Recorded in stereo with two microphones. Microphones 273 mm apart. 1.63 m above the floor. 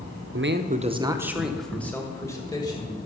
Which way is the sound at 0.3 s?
50° right (ahead or behind).